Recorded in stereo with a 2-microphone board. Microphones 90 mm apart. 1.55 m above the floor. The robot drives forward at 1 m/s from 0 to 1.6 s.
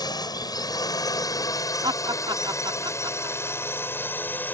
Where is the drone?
50° left (ahead or behind); by 4.5 s 20° left (ahead or behind).